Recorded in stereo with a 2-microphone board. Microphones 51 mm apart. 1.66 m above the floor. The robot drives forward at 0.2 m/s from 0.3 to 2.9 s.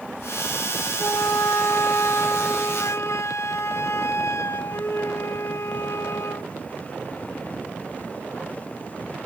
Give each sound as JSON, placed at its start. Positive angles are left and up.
{"t": 1.0, "sound": "a flute", "side_deg": 80, "distance_m": 0.9}